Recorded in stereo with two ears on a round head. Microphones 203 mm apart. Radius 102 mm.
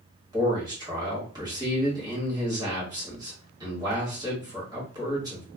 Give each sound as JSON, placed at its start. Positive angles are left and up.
{"t": 0.3, "sound": "a man speaking", "side_deg": -15, "distance_m": 1.4}